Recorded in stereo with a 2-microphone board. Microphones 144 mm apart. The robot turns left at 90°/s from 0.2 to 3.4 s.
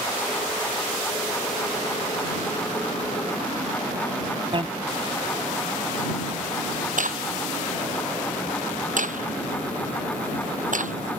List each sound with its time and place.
4.5 s a bicycle bell: 35° right (ahead or behind)
7.0 s a crack: 65° right (ahead or behind)